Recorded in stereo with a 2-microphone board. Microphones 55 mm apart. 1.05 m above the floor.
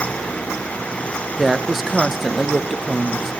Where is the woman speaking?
5° right (ahead or behind), 0.7 m.